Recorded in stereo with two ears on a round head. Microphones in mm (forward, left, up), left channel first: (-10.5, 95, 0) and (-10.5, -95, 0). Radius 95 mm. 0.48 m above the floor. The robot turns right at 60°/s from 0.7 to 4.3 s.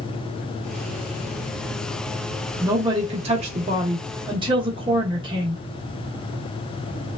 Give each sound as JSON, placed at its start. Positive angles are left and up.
{"t": 2.6, "sound": "a woman speaking", "azimuth_deg": -150, "distance_m": 0.7}